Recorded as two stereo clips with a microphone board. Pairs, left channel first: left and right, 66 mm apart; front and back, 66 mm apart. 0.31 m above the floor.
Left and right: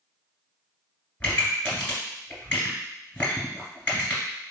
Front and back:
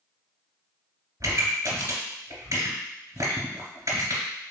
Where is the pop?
160° left, 2.0 m.